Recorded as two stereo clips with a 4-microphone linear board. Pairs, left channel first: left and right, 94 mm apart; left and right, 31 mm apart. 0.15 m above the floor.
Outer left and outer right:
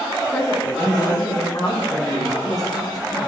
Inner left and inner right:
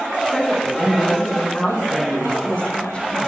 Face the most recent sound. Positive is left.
turn(degrees=40)  # may be behind; listen again after turning